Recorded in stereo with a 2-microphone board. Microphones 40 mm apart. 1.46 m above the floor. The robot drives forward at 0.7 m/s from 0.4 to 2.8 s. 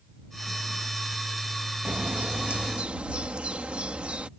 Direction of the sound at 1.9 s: 45° right (ahead or behind).